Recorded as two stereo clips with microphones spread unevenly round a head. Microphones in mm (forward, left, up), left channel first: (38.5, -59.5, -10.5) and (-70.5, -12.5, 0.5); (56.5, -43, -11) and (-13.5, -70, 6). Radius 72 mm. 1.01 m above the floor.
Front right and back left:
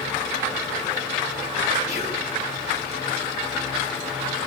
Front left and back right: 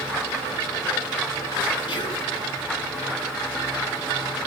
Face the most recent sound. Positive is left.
turn(degrees=25)